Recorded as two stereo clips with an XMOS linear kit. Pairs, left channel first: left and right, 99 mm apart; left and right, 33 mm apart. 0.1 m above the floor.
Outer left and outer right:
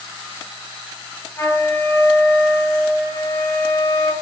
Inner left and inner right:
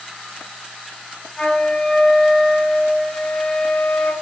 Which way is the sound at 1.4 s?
25° left (ahead or behind).